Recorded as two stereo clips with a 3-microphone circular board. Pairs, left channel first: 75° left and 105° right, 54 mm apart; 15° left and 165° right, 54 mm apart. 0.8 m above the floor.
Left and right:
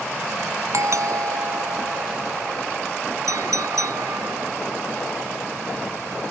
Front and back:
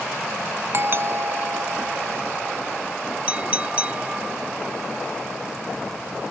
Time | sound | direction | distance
0.7 | a doorbell | 120° right | ?
3.3 | a clink | 100° right | ?